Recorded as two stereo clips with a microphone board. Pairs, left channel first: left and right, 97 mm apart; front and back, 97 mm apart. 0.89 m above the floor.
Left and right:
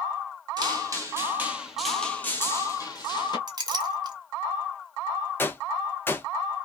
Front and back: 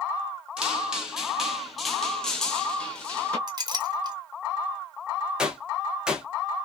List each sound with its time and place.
0.6 s footsteps: 105° right, 1.1 m; by 3.4 s 75° left, 1.2 m
3.5 s a clink: 135° right, 0.7 m
5.4 s a gunshot: 110° left, 0.5 m